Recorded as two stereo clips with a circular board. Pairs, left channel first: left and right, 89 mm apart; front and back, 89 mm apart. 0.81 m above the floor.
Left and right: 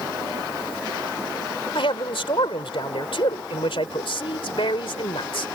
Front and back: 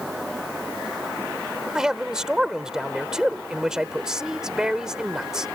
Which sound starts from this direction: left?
A man speaking, at 1.8 s.